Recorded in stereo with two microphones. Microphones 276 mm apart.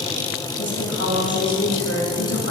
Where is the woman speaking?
60° left (ahead or behind), 2.5 m.